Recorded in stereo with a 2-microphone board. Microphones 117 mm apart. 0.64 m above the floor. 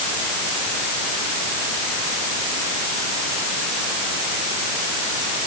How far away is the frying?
No frying in this recording.